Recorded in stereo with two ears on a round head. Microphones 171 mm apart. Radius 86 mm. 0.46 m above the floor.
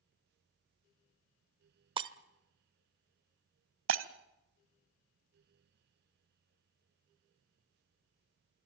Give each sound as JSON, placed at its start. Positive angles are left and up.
{"t": 2.0, "sound": "breaking glass", "side_deg": -25, "distance_m": 0.9}
{"t": 3.9, "sound": "breaking glass", "side_deg": -75, "distance_m": 1.3}